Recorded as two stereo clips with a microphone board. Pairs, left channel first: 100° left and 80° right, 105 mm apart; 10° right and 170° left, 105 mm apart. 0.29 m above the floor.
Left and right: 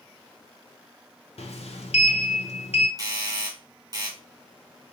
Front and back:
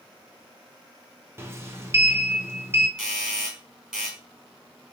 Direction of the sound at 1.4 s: 105° left.